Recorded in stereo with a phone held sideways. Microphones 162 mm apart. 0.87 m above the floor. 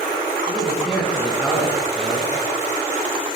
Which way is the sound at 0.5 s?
5° left (ahead or behind).